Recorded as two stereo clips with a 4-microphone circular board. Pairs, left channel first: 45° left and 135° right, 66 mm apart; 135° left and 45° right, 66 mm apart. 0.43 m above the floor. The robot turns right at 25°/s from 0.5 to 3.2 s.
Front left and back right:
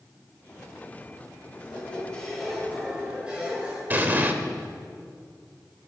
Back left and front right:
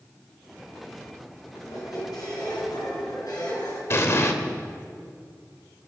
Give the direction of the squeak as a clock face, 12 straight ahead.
8 o'clock.